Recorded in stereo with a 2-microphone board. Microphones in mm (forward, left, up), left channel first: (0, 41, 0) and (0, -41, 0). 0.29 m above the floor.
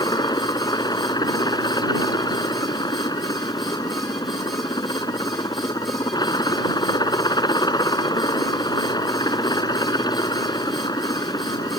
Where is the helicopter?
60° left (ahead or behind).